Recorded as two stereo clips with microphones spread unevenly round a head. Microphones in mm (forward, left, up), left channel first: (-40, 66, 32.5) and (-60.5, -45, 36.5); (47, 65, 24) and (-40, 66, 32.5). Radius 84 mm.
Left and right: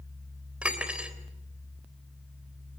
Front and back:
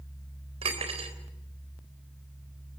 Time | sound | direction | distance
0.6 | cutlery clinking | straight behind | 3.5 m